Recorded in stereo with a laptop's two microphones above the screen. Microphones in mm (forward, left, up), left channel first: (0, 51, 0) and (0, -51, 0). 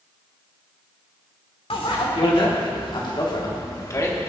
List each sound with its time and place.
1.7 s a bicycle bell: 70° left (ahead or behind), 2 m; by 4.3 s 25° left (ahead or behind), 1.5 m